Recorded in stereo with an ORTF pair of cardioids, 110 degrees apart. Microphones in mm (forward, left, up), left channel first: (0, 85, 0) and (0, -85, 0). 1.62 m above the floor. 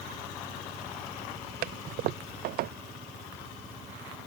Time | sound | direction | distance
1.6 | a toilet flushing | 65° right | ?